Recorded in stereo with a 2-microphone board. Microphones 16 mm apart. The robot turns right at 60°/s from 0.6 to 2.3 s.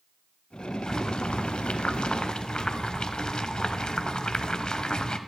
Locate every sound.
0.9 s boiling: 40° left, 0.5 m; by 5.2 s 125° left, 0.5 m